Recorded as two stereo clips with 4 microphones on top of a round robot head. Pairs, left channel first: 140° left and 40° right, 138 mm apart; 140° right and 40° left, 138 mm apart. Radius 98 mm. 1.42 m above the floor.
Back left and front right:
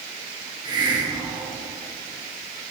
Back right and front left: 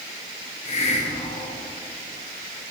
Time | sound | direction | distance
0.7 | a hiss | 100° right | 1.3 m